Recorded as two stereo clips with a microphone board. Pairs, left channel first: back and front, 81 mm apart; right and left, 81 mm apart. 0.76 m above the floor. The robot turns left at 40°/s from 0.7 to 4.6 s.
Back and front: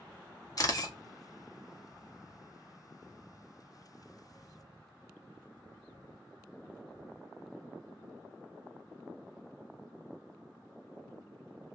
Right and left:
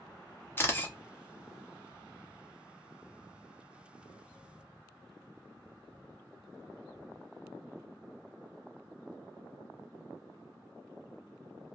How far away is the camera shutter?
About 0.6 m.